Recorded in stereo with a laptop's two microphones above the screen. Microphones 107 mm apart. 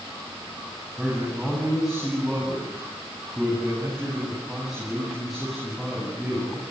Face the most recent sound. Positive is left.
turn(degrees=-5)  # may be behind; listen again after turning